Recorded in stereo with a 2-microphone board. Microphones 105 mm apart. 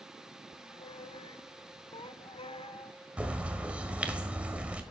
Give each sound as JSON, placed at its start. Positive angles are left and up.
{"t": 0.5, "sound": "a squeak", "side_deg": 60, "distance_m": 0.6}
{"t": 3.2, "sound": "a bird", "side_deg": -10, "distance_m": 1.3}